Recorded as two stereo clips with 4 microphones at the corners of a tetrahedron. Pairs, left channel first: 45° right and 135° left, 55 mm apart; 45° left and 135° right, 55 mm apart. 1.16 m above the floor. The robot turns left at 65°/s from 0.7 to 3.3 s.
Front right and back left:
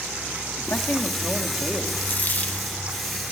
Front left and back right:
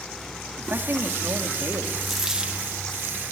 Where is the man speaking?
85° right, 2.5 m; by 1.9 s 160° right, 2.5 m.